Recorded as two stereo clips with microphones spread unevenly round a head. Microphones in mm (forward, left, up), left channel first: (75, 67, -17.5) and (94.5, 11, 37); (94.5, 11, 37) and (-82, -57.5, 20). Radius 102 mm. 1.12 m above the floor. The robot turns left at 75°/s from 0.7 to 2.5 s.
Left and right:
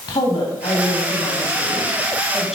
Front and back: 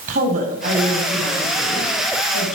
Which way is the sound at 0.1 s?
150° left.